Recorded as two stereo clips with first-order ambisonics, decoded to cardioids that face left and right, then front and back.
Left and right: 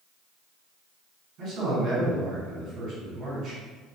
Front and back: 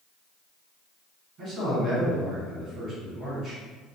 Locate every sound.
1.4 s a man speaking: 130° right, 1.7 m